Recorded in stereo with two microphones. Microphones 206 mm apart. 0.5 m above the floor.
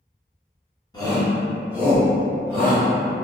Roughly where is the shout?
Left.